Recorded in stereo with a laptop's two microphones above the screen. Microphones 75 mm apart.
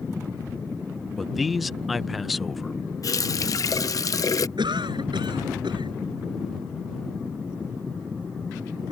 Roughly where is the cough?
Right.